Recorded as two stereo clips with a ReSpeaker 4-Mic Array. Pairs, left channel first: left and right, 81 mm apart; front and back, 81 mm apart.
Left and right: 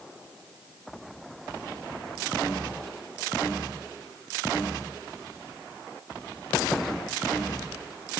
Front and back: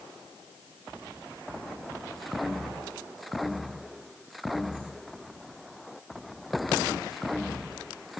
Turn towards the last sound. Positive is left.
No sound to turn to.